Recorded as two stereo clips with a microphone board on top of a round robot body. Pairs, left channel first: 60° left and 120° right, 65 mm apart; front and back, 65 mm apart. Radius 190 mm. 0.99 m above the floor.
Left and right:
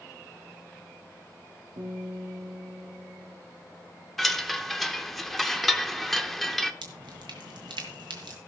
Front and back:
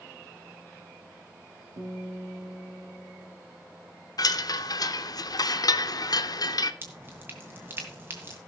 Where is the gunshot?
I don't hear a gunshot.